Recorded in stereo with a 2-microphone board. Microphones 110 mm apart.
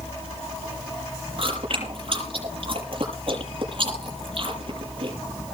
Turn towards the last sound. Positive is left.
turn(degrees=-55)  # may be behind; listen again after turning